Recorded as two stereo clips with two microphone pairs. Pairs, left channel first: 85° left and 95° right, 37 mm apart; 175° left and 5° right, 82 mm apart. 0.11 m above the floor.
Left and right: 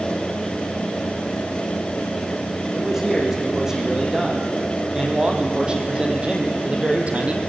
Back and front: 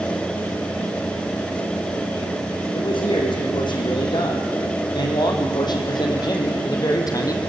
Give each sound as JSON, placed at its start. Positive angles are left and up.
{"t": 2.7, "sound": "a man speaking", "azimuth_deg": -175, "distance_m": 5.5}